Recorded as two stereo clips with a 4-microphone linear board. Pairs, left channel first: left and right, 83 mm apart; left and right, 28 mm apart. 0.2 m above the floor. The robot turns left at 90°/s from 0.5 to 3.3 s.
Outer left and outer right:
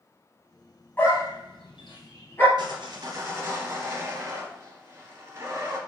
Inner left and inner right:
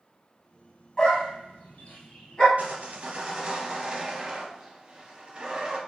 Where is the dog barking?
25° left (ahead or behind), 1.9 m; by 2.5 s 20° left (ahead or behind), 1.9 m.